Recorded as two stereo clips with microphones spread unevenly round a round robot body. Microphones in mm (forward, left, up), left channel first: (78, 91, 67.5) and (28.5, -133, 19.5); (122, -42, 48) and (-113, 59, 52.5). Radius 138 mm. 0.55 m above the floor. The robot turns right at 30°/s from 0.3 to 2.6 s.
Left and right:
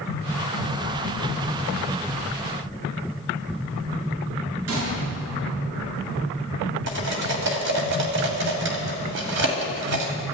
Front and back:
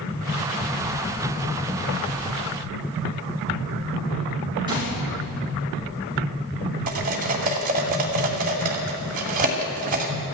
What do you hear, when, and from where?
4.7 s a gunshot: 130° right, 7 m
6.9 s cutlery clinking: 145° right, 2 m